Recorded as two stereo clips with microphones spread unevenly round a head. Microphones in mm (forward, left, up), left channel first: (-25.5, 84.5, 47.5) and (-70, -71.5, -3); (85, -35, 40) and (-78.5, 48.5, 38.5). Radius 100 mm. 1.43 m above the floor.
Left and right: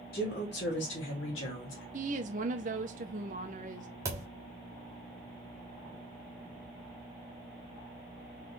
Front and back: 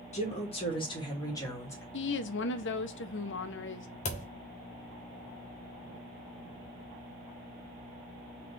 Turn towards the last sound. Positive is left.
turn(degrees=-15)